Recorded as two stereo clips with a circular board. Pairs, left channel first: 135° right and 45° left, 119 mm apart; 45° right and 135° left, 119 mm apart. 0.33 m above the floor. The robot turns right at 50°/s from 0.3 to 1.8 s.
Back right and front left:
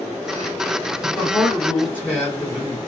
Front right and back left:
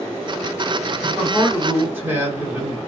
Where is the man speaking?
135° left, 1.5 m; by 2.8 s 170° left, 1.5 m.